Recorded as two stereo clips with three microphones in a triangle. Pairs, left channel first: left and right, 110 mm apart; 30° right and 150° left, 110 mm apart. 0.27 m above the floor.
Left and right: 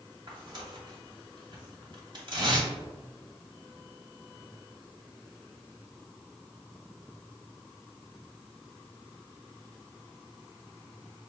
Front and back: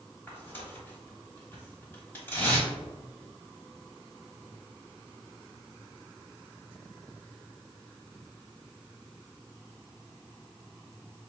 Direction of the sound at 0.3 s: 90° right.